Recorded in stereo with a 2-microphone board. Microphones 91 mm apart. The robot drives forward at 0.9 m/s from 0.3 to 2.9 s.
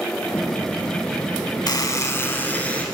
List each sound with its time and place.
1.7 s a buzzer: 45° left (ahead or behind), 0.5 m; by 2.9 s 15° left (ahead or behind), 1.3 m